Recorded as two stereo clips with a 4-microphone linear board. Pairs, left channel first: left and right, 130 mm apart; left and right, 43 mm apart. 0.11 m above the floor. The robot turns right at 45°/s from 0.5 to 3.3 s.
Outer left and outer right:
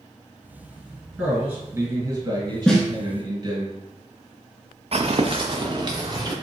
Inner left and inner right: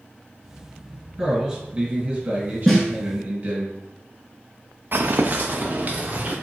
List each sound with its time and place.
1.2 s a man speaking: 170° right, 2.0 m; by 3.7 s 75° right, 2.0 m
2.7 s a snare drum: 5° left (ahead or behind), 1.0 m; by 2.9 s centre (ahead or behind), 1.0 m
4.9 s footsteps: 55° right (ahead or behind), 0.6 m; by 6.3 s 35° right (ahead or behind), 1.3 m